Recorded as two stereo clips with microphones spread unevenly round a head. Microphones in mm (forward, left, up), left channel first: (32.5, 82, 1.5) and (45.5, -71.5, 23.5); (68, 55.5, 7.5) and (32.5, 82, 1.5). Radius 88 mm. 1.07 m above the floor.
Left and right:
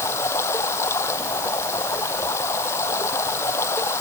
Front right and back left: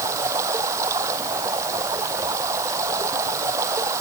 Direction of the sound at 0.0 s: 170° left.